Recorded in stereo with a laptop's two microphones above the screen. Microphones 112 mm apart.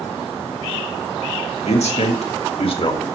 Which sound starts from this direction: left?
A man speaking, at 1.6 s.